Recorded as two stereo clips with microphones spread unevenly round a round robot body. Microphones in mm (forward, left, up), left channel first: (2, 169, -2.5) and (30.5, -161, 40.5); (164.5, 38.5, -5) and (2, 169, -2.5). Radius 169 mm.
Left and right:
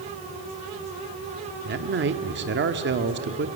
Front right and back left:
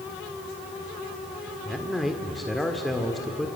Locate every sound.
1.6 s a man speaking: 130° right, 1.2 m